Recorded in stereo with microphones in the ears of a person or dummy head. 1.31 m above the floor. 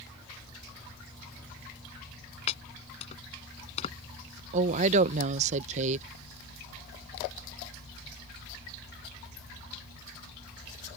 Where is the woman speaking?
45° right (ahead or behind).